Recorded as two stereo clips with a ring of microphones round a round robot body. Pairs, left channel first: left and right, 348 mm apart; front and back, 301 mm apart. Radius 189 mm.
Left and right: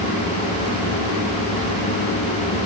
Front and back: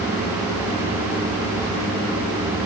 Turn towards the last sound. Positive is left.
No sound to turn to.